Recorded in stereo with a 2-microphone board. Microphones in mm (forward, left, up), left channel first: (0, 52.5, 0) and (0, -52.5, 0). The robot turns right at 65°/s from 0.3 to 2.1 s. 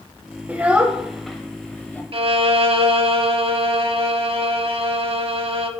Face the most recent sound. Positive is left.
turn(degrees=-55)  # may be behind; listen again after turning